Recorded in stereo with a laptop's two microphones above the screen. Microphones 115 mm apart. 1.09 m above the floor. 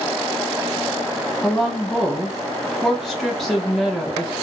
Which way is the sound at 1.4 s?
Centre (ahead or behind).